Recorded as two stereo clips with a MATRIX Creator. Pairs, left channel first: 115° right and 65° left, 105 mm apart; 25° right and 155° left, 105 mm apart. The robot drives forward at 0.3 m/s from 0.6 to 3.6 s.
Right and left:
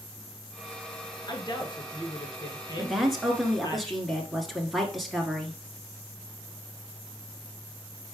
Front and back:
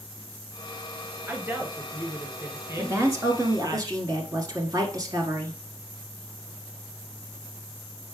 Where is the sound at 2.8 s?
145° left, 1.1 m; by 5.6 s 160° left, 1.2 m.